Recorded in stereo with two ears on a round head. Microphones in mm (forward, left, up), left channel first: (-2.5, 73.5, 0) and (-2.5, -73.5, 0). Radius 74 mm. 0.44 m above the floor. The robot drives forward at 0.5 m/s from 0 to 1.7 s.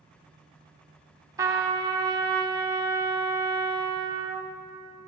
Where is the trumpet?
20° right (ahead or behind), 0.8 m; by 4.5 s 25° right (ahead or behind), 0.6 m.